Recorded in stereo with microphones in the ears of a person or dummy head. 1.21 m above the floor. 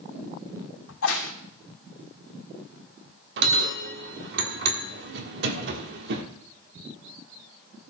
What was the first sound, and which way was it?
A crack, 85° left.